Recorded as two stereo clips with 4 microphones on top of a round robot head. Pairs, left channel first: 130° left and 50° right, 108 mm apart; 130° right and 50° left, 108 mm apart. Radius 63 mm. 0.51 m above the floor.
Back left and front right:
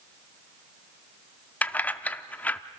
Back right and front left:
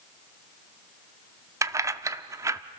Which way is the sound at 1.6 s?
70° left.